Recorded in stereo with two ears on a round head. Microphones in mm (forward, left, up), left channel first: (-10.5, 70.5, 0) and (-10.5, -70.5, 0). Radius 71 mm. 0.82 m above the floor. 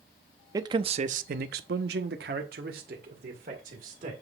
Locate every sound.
0.5 s a man speaking: 25° right (ahead or behind), 0.9 m; by 4.1 s 50° right (ahead or behind), 2.5 m